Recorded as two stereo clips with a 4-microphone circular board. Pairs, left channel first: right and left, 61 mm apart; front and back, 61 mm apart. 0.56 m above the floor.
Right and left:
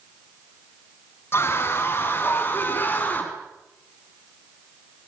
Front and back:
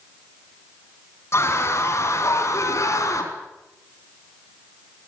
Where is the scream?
40° right, 4.5 m; by 3.3 s 30° right, 5 m.